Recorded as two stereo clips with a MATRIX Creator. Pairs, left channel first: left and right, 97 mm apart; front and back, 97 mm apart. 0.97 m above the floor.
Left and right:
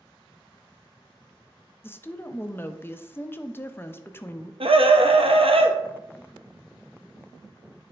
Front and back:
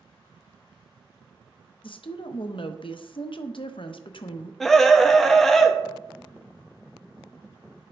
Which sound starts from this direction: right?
A scream, at 4.6 s.